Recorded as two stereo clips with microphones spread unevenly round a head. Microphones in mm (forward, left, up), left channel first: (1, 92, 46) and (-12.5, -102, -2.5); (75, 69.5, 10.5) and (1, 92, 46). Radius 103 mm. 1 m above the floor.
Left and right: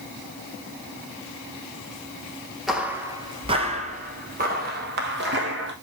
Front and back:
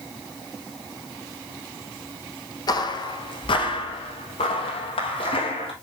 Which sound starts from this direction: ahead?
Footsteps, at 2.7 s.